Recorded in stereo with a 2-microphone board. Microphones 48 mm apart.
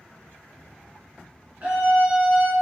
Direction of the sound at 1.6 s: 30° right (ahead or behind).